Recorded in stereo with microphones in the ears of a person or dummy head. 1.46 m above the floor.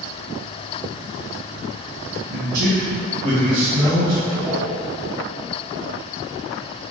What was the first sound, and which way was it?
A man speaking, 70° right (ahead or behind).